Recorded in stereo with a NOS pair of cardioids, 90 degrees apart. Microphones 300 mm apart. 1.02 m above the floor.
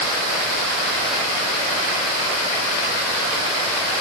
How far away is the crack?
No crack in this recording.